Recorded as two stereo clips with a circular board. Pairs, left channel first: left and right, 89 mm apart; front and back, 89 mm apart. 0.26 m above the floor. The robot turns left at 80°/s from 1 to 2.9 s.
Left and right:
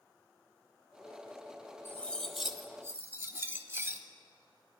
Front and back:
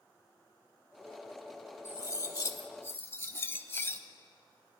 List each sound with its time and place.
1.9 s cutlery clinking: 40° left, 0.6 m; by 4.0 s 45° right, 0.6 m